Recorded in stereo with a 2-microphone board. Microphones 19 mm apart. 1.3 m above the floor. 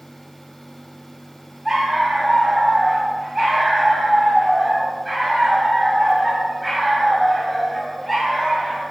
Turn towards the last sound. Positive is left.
turn(degrees=0)  # may be behind; listen again after turning